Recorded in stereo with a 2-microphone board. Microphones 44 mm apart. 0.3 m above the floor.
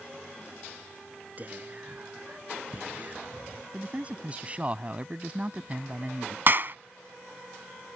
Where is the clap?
45° right (ahead or behind).